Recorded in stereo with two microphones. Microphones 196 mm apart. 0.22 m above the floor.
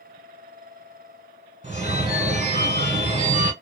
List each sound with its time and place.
1.6 s a phone ringing: 40° right (ahead or behind), 1.1 m